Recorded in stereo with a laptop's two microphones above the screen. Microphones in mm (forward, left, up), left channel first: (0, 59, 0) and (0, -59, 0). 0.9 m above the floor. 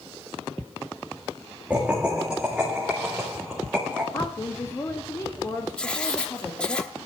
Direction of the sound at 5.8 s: 10° left (ahead or behind).